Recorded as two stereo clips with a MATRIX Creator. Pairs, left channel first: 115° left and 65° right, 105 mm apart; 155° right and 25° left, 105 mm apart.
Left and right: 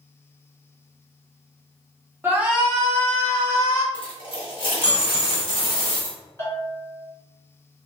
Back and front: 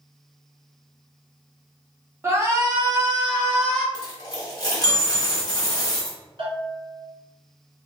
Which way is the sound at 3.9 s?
150° left.